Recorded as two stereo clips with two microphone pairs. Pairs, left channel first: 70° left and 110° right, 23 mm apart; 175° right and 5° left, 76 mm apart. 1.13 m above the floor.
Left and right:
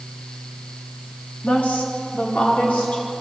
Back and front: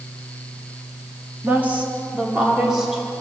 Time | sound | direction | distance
1.4 | a woman speaking | 75° left | 3 m